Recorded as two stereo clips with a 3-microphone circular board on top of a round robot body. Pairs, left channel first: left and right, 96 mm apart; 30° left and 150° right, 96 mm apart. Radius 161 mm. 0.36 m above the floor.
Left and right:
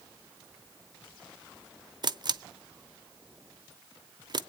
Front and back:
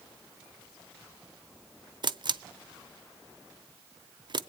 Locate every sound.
2.0 s a camera shutter: 125° right, 0.8 m